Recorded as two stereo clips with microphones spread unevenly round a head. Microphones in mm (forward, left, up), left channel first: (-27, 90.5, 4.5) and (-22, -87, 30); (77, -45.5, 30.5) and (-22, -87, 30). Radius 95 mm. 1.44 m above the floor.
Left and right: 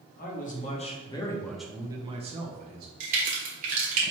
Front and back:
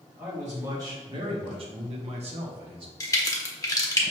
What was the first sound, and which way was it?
A man speaking, 125° left.